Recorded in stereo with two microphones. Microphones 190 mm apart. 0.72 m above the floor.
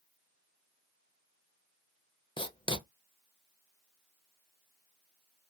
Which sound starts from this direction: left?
Writing, at 2.4 s.